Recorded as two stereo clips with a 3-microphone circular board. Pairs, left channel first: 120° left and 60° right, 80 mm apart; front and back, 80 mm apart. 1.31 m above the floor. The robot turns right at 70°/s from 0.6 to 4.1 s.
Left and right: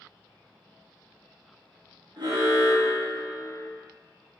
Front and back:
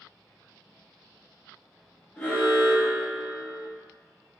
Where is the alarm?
75° right, 1.3 m; by 3.7 s 30° left, 1.3 m.